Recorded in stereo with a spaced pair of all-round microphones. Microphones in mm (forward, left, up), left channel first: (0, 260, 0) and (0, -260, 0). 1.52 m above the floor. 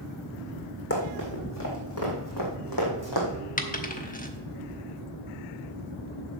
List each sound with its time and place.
0.9 s running footsteps: 25° left (ahead or behind), 3.5 m; by 3.3 s 45° left (ahead or behind), 3 m
3.6 s a dropped coin: 15° left (ahead or behind), 1.0 m